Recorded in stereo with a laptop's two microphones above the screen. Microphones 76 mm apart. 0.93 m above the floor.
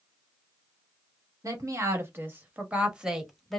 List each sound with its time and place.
1.4 s a woman speaking: 40° right (ahead or behind), 1.5 m; by 3.6 s 5° left (ahead or behind), 1.3 m